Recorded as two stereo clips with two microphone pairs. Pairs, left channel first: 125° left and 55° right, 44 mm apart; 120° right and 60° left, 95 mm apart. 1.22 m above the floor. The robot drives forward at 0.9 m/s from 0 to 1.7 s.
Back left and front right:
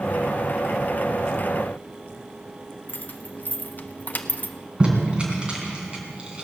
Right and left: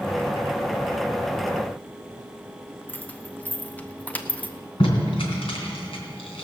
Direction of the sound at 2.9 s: 170° left.